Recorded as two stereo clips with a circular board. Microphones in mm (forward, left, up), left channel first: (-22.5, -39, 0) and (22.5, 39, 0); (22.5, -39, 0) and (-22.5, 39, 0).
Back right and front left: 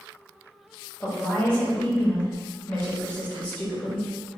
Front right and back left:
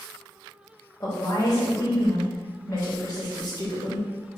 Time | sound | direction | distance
1.0 | a woman speaking | 50° right | 1.2 m